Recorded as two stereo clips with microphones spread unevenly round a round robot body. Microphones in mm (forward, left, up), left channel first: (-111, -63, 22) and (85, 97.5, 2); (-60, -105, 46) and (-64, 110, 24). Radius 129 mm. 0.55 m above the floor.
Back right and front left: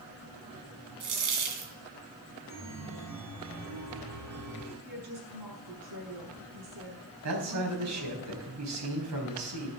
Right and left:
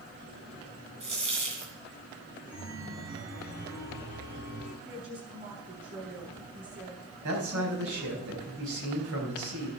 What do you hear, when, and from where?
1.0 s a dropped coin: 25° left, 2.5 m
2.5 s a chime: 60° left, 5 m
4.8 s a woman speaking: 40° left, 5.5 m
7.2 s a man speaking: 55° left, 4 m